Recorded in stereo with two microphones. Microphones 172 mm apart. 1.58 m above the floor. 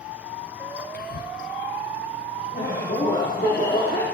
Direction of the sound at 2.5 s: 60° left (ahead or behind).